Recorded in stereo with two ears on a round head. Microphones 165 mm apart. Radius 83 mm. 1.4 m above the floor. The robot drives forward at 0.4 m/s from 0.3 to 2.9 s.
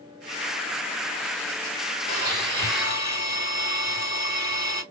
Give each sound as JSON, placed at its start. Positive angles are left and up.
{"t": 2.1, "sound": "a blender", "side_deg": -25, "distance_m": 2.0}